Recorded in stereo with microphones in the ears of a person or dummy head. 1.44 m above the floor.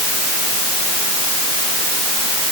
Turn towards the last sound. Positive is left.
No sound to turn to.